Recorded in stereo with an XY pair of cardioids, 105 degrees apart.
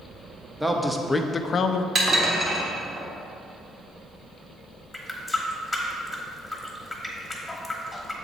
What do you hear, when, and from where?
0.6 s a man speaking: 10° right, 0.8 m; by 1.9 s 75° left, 0.5 m
1.9 s dishes clattering: 40° right, 1.5 m
4.9 s a running tap: 10° left, 1.2 m